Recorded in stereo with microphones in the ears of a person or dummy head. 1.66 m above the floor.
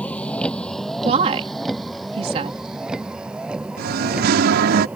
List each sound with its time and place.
0.0 s a vehicle: 5° left (ahead or behind); by 5.0 s 5° right (ahead or behind)
1.0 s a woman speaking: 35° right (ahead or behind)
3.8 s singing: 60° right (ahead or behind)